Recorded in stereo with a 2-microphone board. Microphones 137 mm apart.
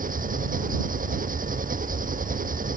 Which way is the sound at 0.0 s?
85° right.